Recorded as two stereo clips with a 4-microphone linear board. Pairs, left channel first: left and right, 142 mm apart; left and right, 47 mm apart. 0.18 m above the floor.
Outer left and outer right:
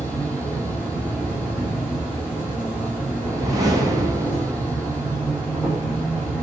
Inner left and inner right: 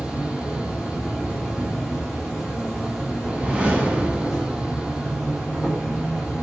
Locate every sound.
0.0 s an insect: 5° right (ahead or behind), 1.0 m
3.2 s a whoosh: 25° right (ahead or behind), 0.7 m